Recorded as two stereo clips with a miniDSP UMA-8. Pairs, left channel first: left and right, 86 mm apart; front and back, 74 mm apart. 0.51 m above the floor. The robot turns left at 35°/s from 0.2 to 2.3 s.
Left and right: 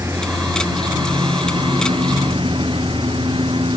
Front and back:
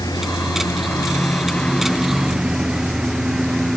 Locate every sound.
0.0 s a lawn mower: 30° right; by 3.8 s 95° right